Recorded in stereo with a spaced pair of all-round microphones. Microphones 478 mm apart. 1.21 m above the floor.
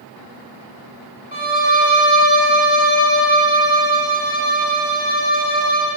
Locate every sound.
1.3 s a violin: 15° right (ahead or behind), 1.5 m